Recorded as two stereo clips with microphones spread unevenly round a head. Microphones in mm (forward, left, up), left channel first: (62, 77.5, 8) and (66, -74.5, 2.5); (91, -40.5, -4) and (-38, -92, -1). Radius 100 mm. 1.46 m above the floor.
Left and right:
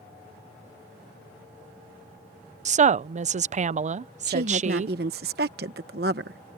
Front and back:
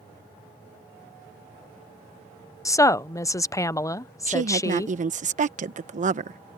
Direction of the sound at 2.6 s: 45° right.